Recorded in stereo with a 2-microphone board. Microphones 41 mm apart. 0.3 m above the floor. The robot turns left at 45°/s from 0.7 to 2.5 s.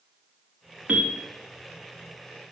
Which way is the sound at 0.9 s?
30° right (ahead or behind).